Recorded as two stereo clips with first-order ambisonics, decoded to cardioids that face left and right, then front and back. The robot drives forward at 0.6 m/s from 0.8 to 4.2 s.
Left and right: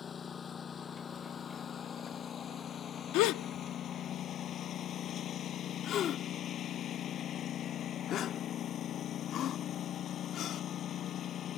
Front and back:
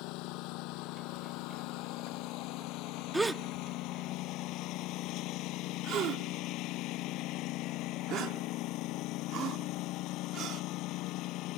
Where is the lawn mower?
25° left; by 11.6 s 35° left.